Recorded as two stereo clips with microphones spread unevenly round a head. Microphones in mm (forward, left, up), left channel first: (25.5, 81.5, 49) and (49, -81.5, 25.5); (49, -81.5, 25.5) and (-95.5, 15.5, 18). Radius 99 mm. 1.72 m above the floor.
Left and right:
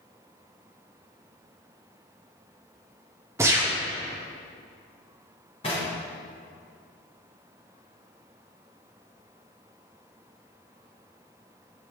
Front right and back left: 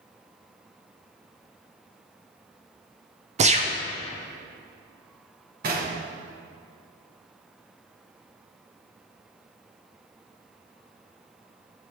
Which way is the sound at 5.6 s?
140° left.